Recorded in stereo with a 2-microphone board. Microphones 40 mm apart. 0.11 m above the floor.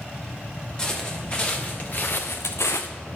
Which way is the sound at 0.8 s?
20° left (ahead or behind).